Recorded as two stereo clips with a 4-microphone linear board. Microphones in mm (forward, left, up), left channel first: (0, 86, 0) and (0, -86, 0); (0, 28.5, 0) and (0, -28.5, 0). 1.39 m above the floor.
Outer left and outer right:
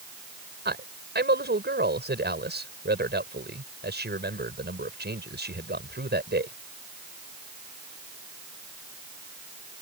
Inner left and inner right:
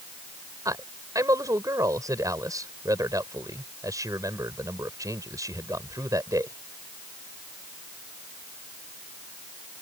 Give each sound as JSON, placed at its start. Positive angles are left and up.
{"t": 0.7, "sound": "a man speaking", "side_deg": -90}